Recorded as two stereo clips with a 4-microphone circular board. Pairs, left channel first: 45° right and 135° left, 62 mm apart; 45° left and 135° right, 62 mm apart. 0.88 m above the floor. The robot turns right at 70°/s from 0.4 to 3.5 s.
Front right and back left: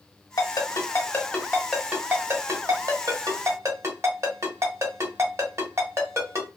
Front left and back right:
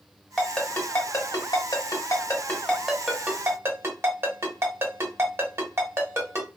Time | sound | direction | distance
0.4 | a ringtone | 40° right | 1.1 m